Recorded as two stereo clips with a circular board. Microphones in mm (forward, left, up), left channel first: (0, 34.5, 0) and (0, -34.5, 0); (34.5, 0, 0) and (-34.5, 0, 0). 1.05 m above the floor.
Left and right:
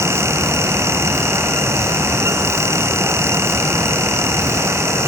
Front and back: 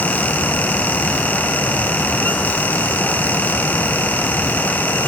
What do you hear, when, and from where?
Only background noise.